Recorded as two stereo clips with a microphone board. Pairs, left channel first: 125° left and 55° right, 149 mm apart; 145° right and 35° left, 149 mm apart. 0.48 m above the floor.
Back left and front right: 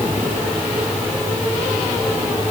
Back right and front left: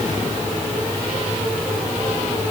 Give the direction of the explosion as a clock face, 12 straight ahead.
I don't hear an explosion.